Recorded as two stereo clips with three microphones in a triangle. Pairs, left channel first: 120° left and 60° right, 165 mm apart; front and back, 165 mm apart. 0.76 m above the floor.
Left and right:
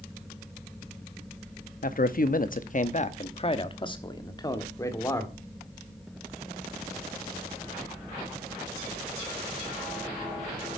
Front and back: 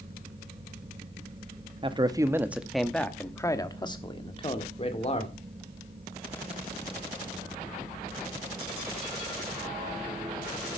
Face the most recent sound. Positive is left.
turn(degrees=45)